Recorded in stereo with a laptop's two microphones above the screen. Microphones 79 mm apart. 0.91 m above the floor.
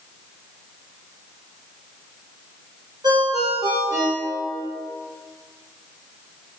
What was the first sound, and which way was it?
A ringtone, 60° right (ahead or behind).